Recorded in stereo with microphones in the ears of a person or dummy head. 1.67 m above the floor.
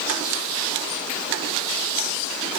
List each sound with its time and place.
Only background noise.